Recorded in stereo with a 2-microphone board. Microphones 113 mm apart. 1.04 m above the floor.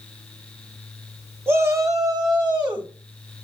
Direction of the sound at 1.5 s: 20° right (ahead or behind).